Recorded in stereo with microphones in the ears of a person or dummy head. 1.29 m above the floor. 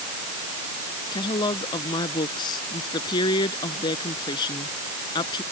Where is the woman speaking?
25° left (ahead or behind).